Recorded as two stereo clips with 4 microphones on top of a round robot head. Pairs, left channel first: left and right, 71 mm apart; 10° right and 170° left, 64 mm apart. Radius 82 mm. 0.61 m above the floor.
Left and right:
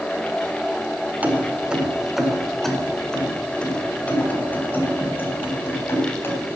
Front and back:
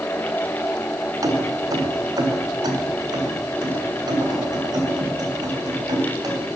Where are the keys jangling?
155° right, 1.7 m; by 6.6 s 150° left, 4 m.